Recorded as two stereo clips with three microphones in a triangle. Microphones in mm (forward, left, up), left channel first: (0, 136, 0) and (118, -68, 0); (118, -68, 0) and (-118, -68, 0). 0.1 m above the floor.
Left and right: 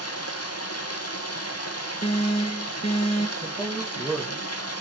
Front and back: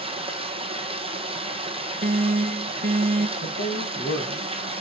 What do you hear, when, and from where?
0.0 s running water: 115° left, 1.4 m
2.0 s an alarm: 165° left, 0.9 m
3.4 s a man speaking: 30° left, 2.5 m